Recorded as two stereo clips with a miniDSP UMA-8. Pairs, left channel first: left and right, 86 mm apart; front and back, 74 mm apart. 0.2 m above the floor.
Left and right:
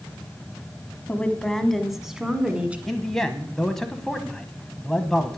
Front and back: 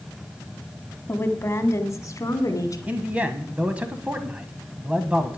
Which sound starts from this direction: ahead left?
A woman speaking, at 1.1 s.